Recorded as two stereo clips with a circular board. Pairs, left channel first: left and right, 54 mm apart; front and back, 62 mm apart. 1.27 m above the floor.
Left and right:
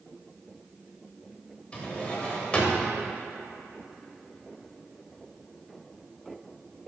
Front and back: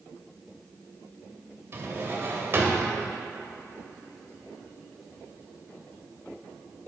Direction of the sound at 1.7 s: 150° left.